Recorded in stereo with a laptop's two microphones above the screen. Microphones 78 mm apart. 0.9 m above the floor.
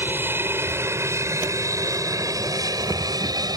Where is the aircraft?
25° right (ahead or behind); by 3.6 s 55° right (ahead or behind).